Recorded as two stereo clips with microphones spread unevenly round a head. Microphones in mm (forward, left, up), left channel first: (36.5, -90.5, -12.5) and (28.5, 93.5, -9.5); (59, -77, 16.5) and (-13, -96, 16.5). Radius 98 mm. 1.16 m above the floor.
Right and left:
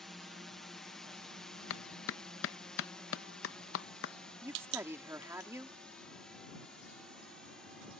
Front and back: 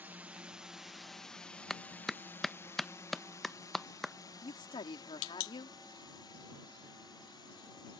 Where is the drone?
175° right; by 8.0 s straight ahead.